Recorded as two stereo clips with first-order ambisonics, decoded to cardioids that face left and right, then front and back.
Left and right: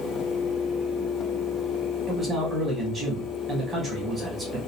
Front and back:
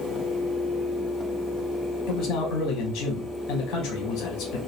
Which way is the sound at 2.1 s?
15° right.